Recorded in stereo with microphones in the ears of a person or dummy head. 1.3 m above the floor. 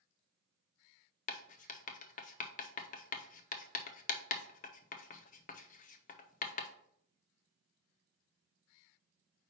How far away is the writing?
About 0.6 m.